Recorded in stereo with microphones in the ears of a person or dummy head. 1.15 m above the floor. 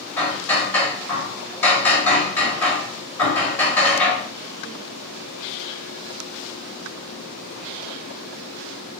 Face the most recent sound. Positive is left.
turn(degrees=5)  # may be behind; listen again after turning